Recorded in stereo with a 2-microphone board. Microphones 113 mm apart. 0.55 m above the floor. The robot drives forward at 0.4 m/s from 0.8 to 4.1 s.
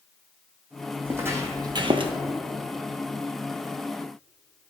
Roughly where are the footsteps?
Centre.